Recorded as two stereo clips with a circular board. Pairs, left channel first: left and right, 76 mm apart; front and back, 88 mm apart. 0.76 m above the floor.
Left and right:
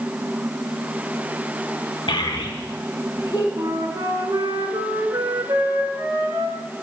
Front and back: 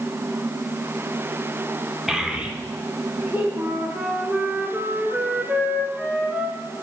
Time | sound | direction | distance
2.1 | a child speaking | 95° left | 0.8 m
3.6 | a flute | 110° right | 1.3 m